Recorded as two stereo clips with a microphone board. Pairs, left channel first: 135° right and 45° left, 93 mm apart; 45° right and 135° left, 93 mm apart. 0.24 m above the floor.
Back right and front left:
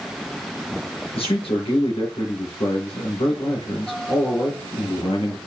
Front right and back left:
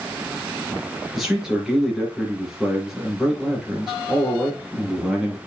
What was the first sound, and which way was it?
A man speaking, 140° right.